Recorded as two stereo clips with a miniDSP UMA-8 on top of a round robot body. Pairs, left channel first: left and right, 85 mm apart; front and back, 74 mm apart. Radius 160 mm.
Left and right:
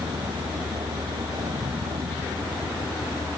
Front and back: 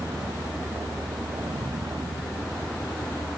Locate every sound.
0.0 s a vehicle: 125° right